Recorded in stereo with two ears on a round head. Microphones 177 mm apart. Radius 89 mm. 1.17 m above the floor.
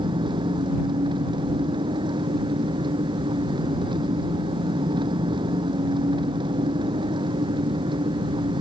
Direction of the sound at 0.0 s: 25° right (ahead or behind).